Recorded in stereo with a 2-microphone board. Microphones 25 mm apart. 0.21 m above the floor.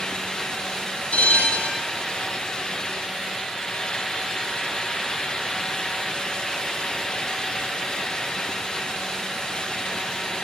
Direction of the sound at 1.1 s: 55° left (ahead or behind).